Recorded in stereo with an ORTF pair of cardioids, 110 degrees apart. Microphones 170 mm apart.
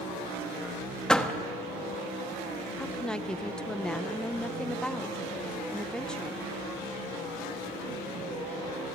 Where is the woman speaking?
5° left, 0.8 m.